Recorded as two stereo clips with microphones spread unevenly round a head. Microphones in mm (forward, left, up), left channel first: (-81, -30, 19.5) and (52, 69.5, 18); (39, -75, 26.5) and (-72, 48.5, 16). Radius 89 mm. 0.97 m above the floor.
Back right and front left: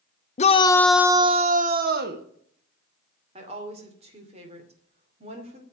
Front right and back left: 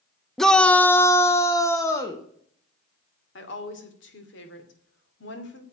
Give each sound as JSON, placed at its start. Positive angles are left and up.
{"t": 0.4, "sound": "a shout", "azimuth_deg": -140, "distance_m": 0.7}
{"t": 3.4, "sound": "a woman speaking", "azimuth_deg": -20, "distance_m": 2.5}